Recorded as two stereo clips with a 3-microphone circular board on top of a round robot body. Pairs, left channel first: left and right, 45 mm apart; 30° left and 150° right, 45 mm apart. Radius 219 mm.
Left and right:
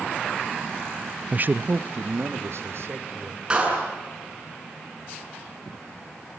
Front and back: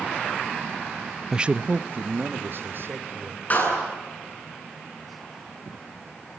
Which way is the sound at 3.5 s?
20° right.